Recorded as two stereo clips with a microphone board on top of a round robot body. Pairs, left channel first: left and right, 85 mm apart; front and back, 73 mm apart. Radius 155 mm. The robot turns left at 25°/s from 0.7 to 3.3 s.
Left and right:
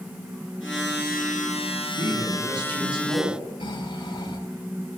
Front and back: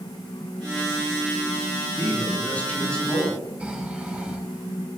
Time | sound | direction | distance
2.0 | a man speaking | 55° right | 9 m
3.6 | snoring | 105° left | 5.5 m